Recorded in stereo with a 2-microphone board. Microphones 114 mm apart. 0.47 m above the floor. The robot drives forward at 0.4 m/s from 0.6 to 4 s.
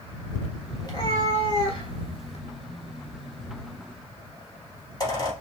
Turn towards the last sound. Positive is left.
turn(degrees=35)  # may be behind; listen again after turning